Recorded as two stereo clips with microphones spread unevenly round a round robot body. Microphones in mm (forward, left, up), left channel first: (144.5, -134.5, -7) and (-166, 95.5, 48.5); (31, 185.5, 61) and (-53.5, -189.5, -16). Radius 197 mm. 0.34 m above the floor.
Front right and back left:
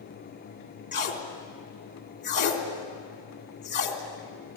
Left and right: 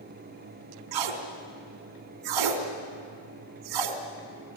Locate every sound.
0.9 s tape being pulled: 105° right, 3 m